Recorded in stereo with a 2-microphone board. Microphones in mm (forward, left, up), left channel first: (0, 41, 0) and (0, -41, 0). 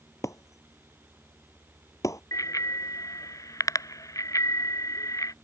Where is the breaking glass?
45° left (ahead or behind).